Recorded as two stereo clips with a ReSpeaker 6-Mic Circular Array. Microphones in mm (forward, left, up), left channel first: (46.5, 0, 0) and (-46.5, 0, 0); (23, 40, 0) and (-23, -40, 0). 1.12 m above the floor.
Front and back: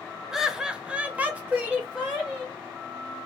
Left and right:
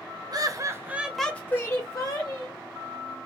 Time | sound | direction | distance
0.3 | laughter | 95° right | 0.7 m